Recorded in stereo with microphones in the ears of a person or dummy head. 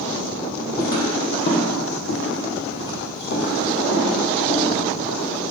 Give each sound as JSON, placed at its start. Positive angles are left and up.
{"t": 0.8, "sound": "footsteps", "side_deg": 15, "distance_m": 2.0}